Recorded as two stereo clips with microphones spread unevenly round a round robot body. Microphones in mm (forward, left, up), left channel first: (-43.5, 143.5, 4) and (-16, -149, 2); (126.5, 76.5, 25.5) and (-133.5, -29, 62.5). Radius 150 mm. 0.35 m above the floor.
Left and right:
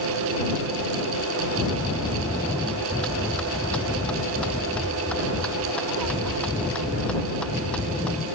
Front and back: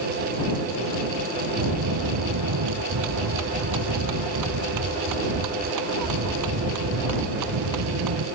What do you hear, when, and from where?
1.6 s a bell: straight behind